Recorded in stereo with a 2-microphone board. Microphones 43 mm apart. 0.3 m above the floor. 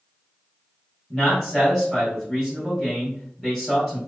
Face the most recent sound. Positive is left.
turn(degrees=5)  # may be behind; listen again after turning